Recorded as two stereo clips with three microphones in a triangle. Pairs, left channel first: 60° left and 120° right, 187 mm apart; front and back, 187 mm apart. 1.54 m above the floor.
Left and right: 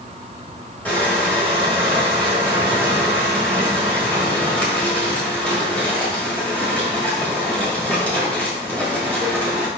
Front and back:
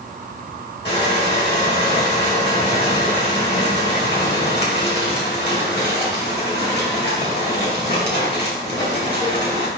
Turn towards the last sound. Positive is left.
turn(degrees=-25)